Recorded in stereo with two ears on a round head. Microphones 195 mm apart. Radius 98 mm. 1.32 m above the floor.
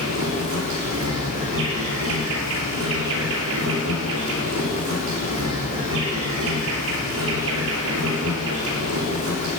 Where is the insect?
65° right (ahead or behind), 6 m.